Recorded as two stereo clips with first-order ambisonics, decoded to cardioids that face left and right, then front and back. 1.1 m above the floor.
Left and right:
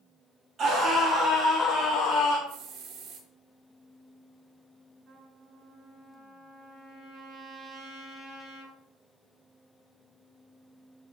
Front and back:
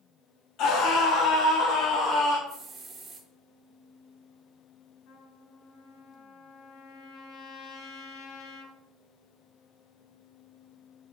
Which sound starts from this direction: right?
A hiss, at 2.5 s.